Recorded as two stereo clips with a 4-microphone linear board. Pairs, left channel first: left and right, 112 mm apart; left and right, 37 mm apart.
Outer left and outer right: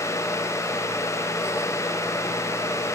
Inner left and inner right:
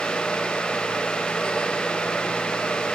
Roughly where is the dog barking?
No dog barking in this recording.